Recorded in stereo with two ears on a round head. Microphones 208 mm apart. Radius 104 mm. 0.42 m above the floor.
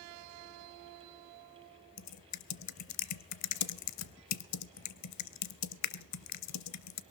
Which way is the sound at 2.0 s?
80° left.